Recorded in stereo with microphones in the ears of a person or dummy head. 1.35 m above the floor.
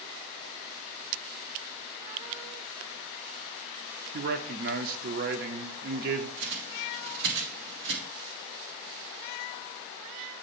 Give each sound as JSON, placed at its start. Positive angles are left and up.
{"t": 4.1, "sound": "a man speaking", "side_deg": -50, "distance_m": 0.7}
{"t": 6.4, "sound": "a bird", "side_deg": -70, "distance_m": 1.4}